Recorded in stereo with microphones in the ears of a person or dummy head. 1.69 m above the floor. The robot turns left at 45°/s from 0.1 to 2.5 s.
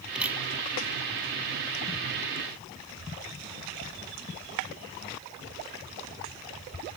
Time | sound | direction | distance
0.1 | a camera shutter | 5° right (ahead or behind) | ?